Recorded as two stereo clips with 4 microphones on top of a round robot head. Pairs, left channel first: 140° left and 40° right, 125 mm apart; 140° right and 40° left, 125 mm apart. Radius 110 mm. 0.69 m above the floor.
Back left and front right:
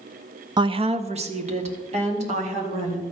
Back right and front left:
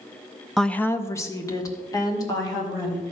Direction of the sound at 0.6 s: 50° right.